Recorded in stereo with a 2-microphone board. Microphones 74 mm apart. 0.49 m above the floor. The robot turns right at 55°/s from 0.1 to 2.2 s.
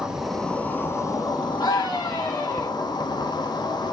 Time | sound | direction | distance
0.0 | an insect | 10° right | 1.0 m
1.6 | a scream | 85° left | 4.5 m